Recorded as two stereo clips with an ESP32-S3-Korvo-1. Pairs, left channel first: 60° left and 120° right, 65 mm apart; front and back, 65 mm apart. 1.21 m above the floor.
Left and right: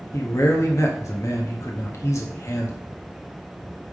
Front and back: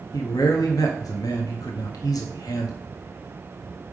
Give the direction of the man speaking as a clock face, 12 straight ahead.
11 o'clock.